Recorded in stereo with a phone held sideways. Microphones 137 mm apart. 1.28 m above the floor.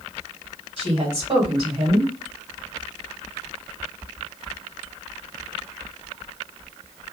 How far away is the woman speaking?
About 2 m.